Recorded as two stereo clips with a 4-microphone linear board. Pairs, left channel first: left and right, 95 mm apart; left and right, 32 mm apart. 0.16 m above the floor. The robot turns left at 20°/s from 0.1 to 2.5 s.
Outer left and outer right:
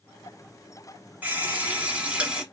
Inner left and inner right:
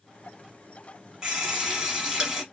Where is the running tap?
15° right (ahead or behind), 1.0 m; by 2.4 s 10° right (ahead or behind), 1.0 m.